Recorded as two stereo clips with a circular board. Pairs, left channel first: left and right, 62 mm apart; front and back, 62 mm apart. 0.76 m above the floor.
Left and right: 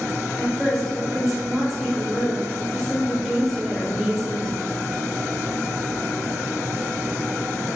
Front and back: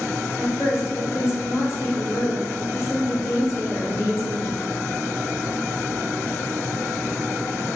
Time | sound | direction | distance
0.4 | a woman speaking | straight ahead | 1.0 m